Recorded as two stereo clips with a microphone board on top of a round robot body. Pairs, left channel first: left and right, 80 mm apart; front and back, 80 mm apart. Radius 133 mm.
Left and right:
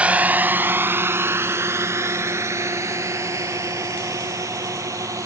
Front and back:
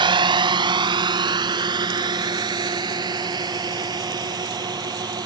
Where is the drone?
165° right; by 5.3 s 145° right.